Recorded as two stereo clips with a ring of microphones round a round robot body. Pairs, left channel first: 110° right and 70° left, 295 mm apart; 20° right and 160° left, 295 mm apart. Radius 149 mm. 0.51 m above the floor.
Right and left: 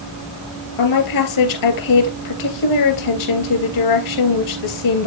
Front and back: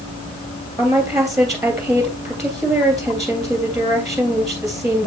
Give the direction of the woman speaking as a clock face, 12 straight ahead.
4 o'clock.